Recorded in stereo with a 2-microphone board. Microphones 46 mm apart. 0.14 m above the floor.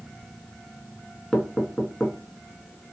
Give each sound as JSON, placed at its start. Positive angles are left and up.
{"t": 1.3, "sound": "knocking", "side_deg": 20, "distance_m": 0.8}